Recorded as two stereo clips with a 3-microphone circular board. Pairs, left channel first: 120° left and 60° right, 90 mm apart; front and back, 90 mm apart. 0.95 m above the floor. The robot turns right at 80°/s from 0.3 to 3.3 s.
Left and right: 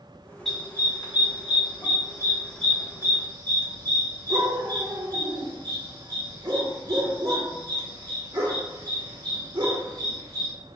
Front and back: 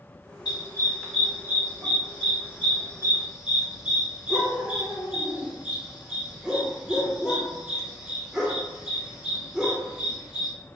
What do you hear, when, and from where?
0.5 s a dog barking: 35° left, 1.1 m; by 10.5 s 100° right, 1.1 m